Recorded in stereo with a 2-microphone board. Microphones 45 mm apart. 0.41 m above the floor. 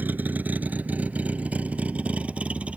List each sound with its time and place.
0.0 s a vehicle: 45° right (ahead or behind); by 2.8 s 30° right (ahead or behind)